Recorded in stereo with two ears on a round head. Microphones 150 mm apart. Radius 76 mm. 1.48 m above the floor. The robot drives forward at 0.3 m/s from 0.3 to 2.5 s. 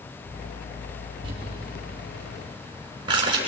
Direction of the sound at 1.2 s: 30° right (ahead or behind).